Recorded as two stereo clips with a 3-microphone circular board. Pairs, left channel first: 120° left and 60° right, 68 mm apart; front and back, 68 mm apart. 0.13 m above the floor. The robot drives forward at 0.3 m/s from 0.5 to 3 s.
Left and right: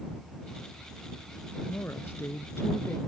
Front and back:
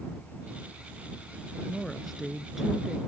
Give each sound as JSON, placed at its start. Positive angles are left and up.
{"t": 1.7, "sound": "a woman speaking", "azimuth_deg": 85}